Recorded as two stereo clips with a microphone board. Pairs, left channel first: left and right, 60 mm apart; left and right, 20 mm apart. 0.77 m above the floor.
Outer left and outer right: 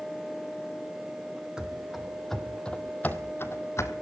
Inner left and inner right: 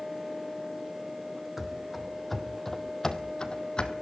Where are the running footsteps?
10° right (ahead or behind), 1.5 m; by 3.9 s 50° left (ahead or behind), 1.3 m.